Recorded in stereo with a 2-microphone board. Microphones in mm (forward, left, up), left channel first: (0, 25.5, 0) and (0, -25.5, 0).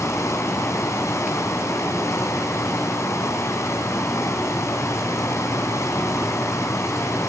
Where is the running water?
70° left (ahead or behind), 4 m.